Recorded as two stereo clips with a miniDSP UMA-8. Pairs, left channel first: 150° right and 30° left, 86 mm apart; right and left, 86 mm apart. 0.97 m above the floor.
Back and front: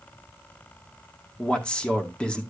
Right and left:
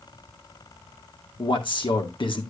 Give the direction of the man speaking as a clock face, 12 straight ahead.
2 o'clock.